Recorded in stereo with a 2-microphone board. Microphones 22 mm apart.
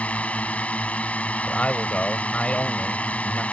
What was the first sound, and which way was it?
A drone, 75° left (ahead or behind).